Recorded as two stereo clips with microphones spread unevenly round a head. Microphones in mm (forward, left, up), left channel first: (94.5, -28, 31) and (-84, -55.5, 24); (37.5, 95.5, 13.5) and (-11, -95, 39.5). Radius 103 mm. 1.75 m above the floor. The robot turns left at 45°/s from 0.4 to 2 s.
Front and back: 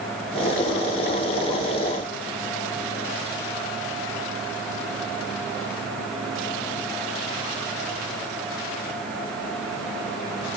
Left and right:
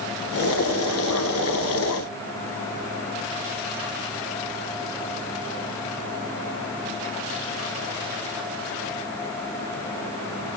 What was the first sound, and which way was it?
Only background noise.